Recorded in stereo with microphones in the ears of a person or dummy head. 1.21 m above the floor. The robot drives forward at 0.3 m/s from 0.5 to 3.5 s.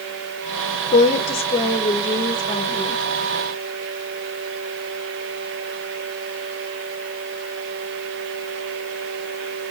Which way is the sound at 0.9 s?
40° left (ahead or behind).